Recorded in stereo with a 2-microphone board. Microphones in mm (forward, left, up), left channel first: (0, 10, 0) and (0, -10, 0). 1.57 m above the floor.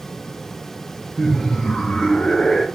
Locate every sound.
1.2 s laughter: 25° left (ahead or behind), 0.5 m; by 2.6 s 80° left, 1.1 m